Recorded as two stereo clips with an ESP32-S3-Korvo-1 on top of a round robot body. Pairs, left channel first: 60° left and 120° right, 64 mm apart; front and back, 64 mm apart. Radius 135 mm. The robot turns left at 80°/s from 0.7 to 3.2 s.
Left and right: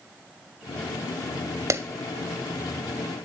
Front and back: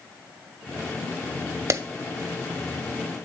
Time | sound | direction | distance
1.7 | a clap | 150° right | 0.9 m